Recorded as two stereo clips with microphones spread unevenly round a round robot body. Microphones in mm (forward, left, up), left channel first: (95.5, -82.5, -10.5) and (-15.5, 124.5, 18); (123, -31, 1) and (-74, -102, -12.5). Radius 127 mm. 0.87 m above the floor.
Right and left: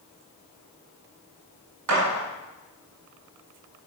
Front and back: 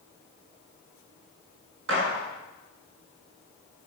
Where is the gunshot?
150° left, 5.5 m.